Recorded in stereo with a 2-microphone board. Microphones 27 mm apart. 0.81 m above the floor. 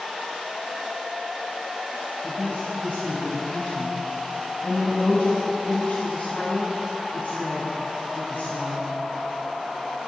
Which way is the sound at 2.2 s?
65° left (ahead or behind).